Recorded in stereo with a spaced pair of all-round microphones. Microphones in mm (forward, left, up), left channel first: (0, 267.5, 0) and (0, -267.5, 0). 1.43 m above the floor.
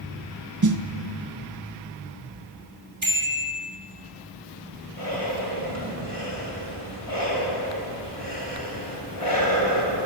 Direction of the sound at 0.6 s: 35° right (ahead or behind).